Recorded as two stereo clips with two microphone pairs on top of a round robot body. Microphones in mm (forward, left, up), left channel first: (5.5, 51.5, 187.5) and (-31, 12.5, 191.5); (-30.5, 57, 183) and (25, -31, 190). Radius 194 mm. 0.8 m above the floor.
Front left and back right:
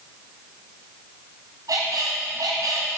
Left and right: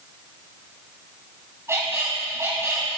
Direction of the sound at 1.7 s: 125° right.